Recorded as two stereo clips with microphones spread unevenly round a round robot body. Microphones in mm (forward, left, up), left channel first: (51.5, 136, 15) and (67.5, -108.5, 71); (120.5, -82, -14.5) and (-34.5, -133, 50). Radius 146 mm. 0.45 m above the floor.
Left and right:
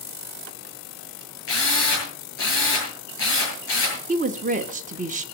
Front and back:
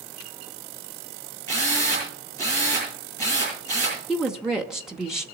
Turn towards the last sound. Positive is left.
turn(degrees=-35)